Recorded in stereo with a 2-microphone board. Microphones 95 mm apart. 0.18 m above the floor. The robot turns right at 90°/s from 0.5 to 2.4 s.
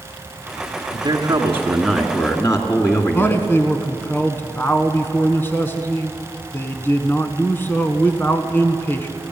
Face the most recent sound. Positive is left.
turn(degrees=20)  # may be behind; listen again after turning